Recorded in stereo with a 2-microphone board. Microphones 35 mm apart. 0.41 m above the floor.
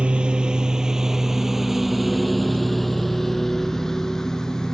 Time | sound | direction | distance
0.0 | a lawn mower | 30° right (ahead or behind) | ?